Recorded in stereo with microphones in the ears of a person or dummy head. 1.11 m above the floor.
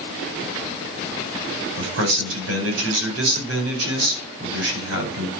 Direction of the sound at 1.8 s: 80° right.